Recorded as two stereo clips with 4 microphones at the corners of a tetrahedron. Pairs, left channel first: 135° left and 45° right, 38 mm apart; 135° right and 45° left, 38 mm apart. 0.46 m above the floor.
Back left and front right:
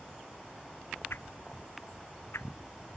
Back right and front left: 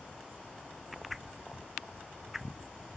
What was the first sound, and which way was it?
A whoosh, 130° left.